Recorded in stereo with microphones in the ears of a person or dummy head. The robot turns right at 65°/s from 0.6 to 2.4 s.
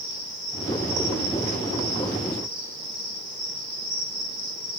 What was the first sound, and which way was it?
An insect, 145° right.